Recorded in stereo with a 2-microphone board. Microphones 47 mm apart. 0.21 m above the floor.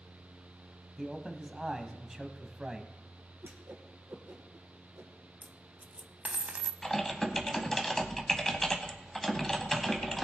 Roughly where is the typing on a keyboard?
Centre.